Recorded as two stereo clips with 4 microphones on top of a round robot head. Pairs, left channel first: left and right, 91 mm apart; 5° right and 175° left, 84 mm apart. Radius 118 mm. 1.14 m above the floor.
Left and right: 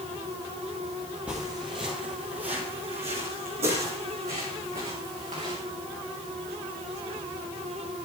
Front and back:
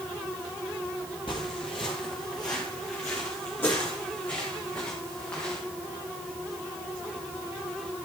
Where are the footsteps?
10° right, 1.3 m; by 5.6 s 80° right, 5.5 m.